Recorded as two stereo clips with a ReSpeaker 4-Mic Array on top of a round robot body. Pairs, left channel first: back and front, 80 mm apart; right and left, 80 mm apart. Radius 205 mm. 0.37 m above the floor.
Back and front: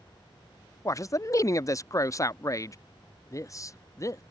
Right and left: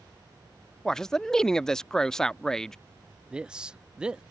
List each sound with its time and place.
0.8 s a man speaking: 170° right
3.3 s a man speaking: 165° left